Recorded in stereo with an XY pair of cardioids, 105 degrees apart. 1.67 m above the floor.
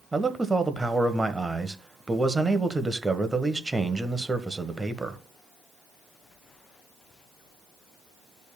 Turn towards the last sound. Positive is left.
turn(degrees=-20)